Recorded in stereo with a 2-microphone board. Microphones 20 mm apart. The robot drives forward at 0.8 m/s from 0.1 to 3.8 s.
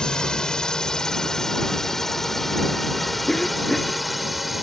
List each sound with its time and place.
0.0 s a drone: 40° left (ahead or behind); by 4.6 s 10° right (ahead or behind)
3.3 s a cough: 30° left (ahead or behind)